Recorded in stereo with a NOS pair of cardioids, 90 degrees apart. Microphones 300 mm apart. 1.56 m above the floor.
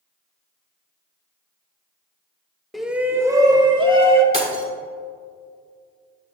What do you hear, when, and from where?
2.7 s a shout: straight ahead, 1.2 m; by 4.2 s 20° right, 2.5 m
4.3 s breaking glass: 20° right, 3.5 m